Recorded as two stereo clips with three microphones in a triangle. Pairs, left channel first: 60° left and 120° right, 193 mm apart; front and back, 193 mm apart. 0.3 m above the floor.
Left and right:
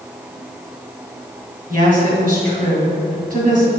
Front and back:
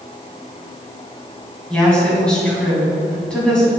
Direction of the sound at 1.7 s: 85° right.